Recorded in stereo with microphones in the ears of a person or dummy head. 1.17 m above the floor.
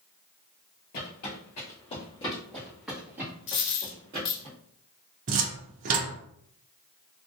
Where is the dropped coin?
50° left (ahead or behind), 1.3 m.